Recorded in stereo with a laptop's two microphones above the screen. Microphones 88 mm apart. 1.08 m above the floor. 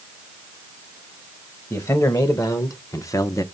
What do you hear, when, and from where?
1.7 s a man speaking: 40° left (ahead or behind), 1.5 m